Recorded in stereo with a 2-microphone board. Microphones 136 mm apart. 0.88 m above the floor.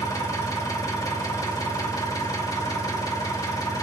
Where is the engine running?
25° left (ahead or behind), 1.2 m.